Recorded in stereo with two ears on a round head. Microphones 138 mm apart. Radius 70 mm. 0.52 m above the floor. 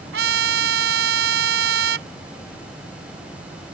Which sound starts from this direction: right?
A trumpet, at 0.1 s.